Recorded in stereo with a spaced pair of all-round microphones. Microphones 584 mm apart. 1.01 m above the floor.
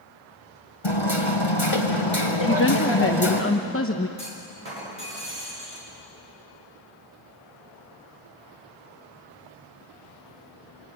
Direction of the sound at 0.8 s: 50° left (ahead or behind).